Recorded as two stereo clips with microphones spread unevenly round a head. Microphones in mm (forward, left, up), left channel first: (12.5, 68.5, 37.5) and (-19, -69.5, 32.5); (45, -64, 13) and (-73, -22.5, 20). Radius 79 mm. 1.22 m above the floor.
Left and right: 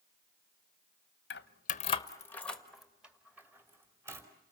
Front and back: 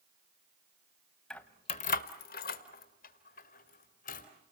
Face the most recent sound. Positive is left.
turn(degrees=-30)